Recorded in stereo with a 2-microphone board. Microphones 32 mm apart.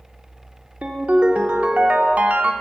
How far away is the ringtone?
About 0.6 m.